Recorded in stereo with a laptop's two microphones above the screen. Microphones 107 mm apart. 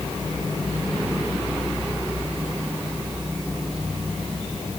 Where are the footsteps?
No footsteps in this recording.